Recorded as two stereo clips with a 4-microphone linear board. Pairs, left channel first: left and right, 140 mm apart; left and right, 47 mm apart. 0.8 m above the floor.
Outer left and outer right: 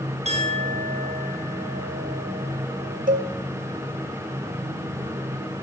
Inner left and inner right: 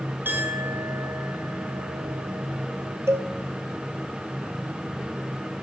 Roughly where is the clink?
Right.